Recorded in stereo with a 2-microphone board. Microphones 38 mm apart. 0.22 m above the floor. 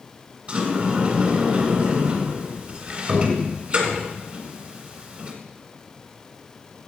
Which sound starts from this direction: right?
A sliding door, at 0.5 s.